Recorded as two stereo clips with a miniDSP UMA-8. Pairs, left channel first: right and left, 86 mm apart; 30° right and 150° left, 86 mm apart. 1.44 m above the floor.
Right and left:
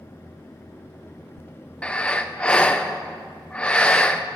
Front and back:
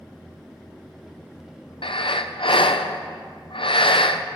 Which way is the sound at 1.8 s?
15° right.